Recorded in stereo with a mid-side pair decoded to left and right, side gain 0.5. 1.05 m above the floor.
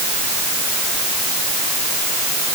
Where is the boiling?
I don't hear boiling.